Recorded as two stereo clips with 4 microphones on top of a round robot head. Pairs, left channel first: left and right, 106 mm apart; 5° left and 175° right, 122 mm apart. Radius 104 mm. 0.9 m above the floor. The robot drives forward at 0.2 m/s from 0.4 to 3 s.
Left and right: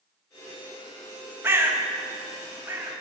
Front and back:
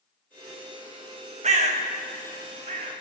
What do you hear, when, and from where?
1.4 s a bird: 160° right, 0.9 m; by 2.9 s 165° right, 1.1 m